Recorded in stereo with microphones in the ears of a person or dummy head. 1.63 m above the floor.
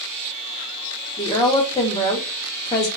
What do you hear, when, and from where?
1.2 s a woman speaking: 25° left (ahead or behind), 0.8 m